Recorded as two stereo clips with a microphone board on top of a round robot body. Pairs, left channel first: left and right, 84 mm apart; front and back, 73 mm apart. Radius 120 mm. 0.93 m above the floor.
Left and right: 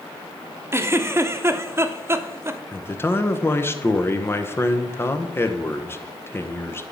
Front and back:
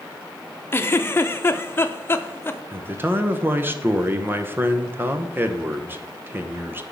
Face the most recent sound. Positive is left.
turn(degrees=135)